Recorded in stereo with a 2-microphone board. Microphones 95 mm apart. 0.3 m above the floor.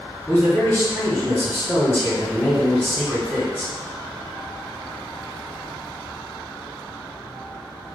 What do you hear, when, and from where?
0.3 s a man speaking: 20° left (ahead or behind), 1.8 m